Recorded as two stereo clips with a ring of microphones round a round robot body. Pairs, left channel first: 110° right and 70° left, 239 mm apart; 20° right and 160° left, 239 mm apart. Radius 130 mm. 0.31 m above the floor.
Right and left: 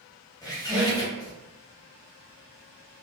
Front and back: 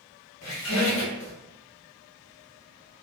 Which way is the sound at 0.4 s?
40° right.